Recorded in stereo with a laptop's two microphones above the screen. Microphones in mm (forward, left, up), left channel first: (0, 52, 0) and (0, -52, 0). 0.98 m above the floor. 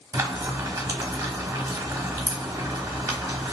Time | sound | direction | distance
0.1 | frying | 30° right (ahead or behind) | 0.9 m